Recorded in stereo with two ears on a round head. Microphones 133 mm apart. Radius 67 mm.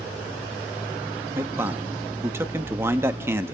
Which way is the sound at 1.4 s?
15° right (ahead or behind).